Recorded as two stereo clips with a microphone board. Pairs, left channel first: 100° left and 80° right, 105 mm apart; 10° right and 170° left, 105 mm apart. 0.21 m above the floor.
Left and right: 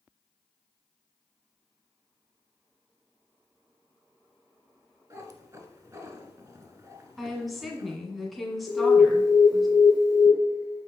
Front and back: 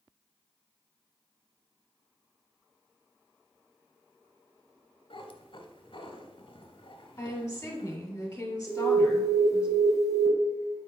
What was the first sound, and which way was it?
A cat meowing, 30° right.